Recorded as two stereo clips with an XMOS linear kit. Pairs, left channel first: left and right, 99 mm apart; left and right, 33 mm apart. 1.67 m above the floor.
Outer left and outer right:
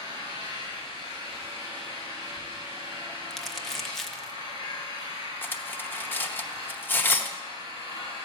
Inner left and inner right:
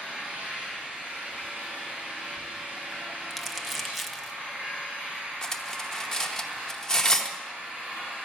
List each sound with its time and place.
0.0 s an engine running: 55° right (ahead or behind), 7 m
3.3 s crumpling: centre (ahead or behind), 0.8 m
5.4 s cutlery clinking: 20° left (ahead or behind), 0.8 m